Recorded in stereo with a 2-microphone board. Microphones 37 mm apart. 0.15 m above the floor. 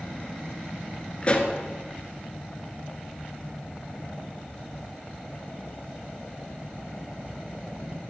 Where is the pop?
30° left (ahead or behind), 1.5 m.